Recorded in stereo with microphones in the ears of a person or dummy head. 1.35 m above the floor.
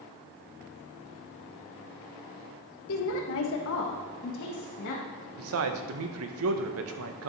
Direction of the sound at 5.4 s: 75° right (ahead or behind).